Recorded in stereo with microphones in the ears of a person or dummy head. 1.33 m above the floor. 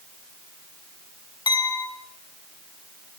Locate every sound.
1.5 s a clink: 25° left (ahead or behind), 5 m